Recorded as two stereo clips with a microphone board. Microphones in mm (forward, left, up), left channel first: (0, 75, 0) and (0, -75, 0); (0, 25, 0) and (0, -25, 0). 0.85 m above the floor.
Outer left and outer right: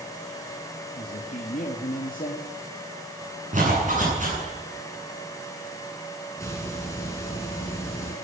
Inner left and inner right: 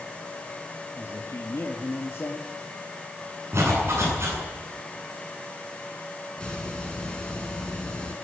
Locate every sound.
1.0 s a man speaking: 65° left (ahead or behind), 2 m
3.5 s a zipper: 55° right (ahead or behind), 10 m
6.4 s a hiss: 20° left (ahead or behind), 4.5 m